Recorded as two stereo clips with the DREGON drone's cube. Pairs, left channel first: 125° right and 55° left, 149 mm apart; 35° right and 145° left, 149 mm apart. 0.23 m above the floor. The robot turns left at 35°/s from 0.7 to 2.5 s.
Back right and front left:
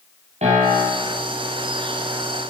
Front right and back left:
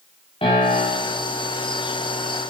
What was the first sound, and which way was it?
A piano, 15° left.